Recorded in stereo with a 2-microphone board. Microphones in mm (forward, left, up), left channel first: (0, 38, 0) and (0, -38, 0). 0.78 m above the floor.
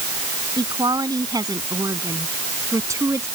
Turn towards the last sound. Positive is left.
turn(degrees=-35)  # may be behind; listen again after turning